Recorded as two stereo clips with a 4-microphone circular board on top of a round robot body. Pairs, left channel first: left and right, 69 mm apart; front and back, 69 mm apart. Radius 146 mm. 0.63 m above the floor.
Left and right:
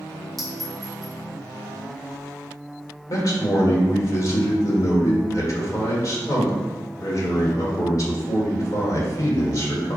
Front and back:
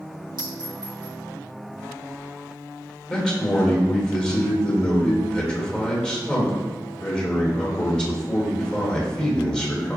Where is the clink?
Straight behind, 1.7 m.